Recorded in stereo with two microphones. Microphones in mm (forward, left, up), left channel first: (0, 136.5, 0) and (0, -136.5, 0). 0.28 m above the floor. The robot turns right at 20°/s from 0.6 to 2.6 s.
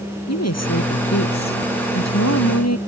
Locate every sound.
0.3 s a woman speaking: 70° left; by 2.8 s 110° left